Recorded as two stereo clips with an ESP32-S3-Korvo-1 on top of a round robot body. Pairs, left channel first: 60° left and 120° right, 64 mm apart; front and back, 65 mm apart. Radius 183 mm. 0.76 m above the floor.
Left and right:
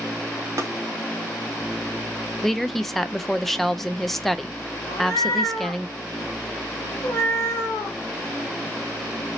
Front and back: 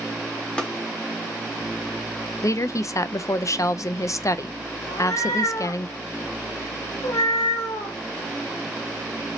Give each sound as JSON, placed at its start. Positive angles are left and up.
{"t": 0.6, "sound": "tapping", "azimuth_deg": -75, "distance_m": 0.9}
{"t": 2.4, "sound": "a woman speaking", "azimuth_deg": -25, "distance_m": 0.6}
{"t": 4.9, "sound": "a cat meowing", "azimuth_deg": 15, "distance_m": 0.6}